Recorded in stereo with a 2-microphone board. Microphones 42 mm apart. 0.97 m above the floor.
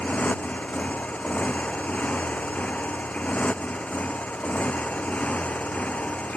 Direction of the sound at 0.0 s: 30° left (ahead or behind).